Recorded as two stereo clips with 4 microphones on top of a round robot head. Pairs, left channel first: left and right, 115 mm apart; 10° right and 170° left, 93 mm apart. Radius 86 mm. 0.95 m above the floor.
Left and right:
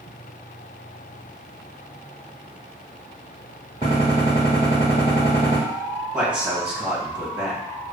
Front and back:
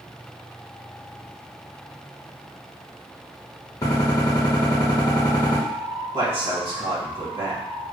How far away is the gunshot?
About 1.2 m.